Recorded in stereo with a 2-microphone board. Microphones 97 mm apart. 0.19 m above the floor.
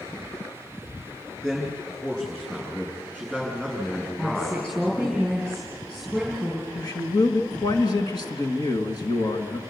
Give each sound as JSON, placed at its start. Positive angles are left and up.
{"t": 1.4, "sound": "a man speaking", "side_deg": 5, "distance_m": 7.0}
{"t": 4.2, "sound": "a woman speaking", "side_deg": 5, "distance_m": 4.0}
{"t": 6.8, "sound": "a man speaking", "side_deg": 45, "distance_m": 2.0}